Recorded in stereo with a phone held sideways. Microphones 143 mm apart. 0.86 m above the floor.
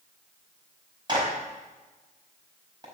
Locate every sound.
1.1 s a clap: 30° right (ahead or behind), 4.5 m